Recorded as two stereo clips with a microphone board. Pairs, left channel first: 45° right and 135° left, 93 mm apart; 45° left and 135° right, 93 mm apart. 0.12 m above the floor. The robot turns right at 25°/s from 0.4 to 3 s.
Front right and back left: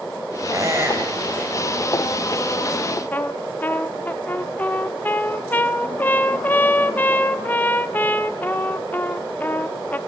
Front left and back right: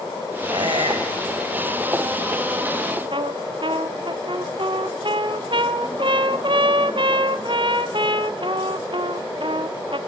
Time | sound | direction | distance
0.5 | a squeak | 170° right | 4 m
3.1 | a trumpet | 115° right | 0.7 m